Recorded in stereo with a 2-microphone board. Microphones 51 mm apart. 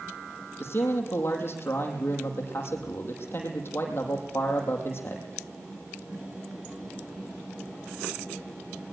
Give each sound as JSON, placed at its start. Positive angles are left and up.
{"t": 0.6, "sound": "a man speaking", "side_deg": 45, "distance_m": 5.5}